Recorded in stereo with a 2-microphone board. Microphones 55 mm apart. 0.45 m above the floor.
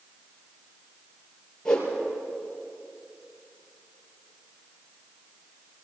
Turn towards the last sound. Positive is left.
turn(degrees=10)  # may be behind; listen again after turning